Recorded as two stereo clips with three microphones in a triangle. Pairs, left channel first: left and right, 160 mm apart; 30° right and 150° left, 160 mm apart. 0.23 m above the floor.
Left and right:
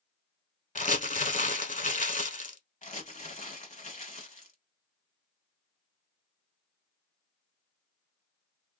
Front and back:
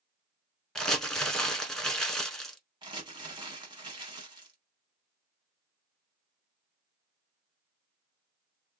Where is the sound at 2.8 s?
100° left, 1.2 m.